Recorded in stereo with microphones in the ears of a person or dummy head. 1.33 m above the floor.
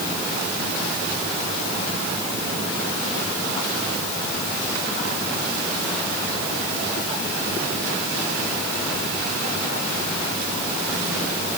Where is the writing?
No writing in this recording.